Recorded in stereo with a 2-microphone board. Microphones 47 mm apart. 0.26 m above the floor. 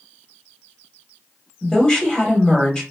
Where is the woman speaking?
20° left (ahead or behind), 0.9 m.